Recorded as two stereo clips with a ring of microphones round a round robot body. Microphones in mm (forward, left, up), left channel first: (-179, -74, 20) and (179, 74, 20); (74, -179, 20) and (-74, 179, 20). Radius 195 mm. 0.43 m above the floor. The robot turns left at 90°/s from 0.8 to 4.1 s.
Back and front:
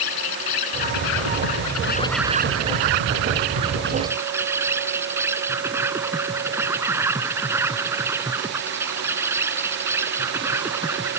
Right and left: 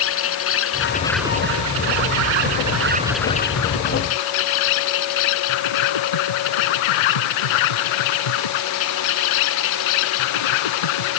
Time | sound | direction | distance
0.0 | an insect | 125° right | ?